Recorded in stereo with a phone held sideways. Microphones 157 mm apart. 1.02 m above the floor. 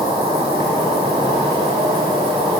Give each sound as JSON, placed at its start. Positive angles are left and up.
{"t": 0.0, "sound": "an insect", "side_deg": -25, "distance_m": 1.3}